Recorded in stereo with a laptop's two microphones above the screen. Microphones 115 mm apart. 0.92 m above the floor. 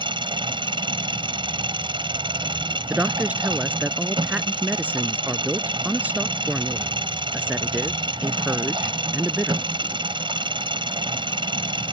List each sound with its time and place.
0.0 s an engine running: 45° right (ahead or behind)
2.9 s a woman speaking: 15° right (ahead or behind)